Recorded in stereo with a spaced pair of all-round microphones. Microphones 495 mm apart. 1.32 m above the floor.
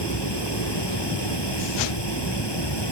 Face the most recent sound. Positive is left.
turn(degrees=55)  # may be behind; listen again after turning